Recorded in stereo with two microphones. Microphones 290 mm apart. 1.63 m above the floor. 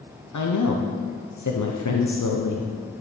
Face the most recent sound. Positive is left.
turn(degrees=80)